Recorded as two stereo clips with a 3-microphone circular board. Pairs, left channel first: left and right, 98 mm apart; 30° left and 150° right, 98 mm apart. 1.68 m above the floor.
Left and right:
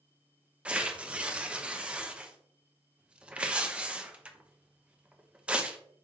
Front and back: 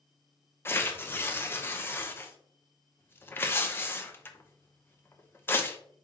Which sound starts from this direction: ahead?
Tearing paper, at 0.7 s.